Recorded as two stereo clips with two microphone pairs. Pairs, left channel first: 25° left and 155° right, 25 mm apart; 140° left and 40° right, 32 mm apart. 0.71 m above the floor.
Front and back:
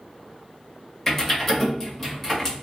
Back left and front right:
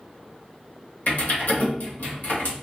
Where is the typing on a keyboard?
105° left, 1.2 m.